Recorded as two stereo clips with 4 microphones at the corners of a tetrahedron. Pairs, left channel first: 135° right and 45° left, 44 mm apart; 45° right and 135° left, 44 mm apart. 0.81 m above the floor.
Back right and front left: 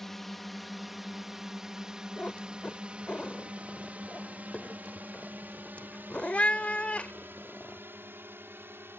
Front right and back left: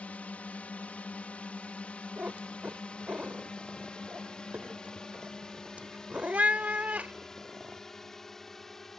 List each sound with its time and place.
0.0 s a drone: 55° right; by 9.0 s 40° left
2.2 s a cat meowing: 175° left